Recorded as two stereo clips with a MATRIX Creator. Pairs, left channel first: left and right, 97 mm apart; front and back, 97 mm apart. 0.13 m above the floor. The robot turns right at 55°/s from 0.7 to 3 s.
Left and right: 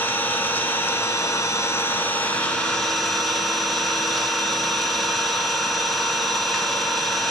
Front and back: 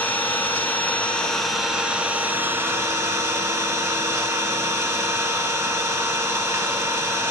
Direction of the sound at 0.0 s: 50° left.